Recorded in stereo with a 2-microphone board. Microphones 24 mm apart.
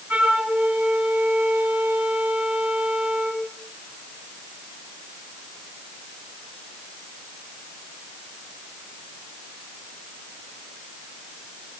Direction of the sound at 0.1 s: 70° right (ahead or behind).